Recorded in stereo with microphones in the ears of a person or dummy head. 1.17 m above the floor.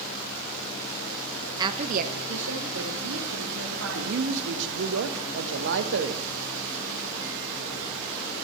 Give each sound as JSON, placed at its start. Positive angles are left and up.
{"t": 1.6, "sound": "a woman speaking", "side_deg": -20, "distance_m": 0.6}
{"t": 4.0, "sound": "a man speaking", "side_deg": -65, "distance_m": 0.9}